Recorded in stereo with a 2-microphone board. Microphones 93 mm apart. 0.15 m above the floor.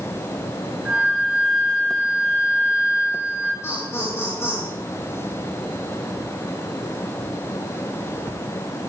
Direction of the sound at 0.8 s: 10° right (ahead or behind).